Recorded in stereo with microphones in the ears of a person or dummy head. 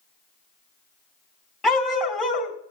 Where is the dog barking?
Centre (ahead or behind), 3 m.